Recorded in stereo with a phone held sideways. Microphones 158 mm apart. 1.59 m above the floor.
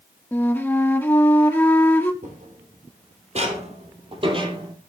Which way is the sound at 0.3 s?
15° left (ahead or behind).